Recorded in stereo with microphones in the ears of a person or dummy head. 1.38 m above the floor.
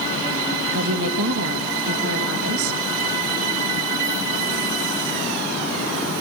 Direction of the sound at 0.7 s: 70° right (ahead or behind).